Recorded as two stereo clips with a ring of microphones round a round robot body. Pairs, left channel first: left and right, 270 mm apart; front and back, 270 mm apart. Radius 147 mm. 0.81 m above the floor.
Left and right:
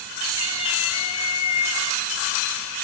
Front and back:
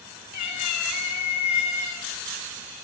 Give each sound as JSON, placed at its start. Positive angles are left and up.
{"t": 0.3, "sound": "a cat meowing", "azimuth_deg": 25, "distance_m": 3.5}